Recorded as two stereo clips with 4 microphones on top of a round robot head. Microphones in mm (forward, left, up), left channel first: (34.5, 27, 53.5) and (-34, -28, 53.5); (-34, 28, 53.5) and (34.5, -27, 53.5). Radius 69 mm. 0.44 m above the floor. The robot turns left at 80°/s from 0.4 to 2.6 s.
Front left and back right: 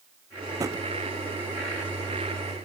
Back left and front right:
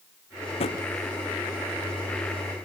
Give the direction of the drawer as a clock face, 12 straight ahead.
7 o'clock.